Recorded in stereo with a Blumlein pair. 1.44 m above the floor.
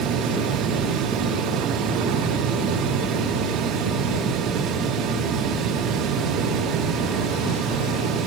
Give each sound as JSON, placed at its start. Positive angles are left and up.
{"t": 0.0, "sound": "a fan", "azimuth_deg": -30, "distance_m": 2.5}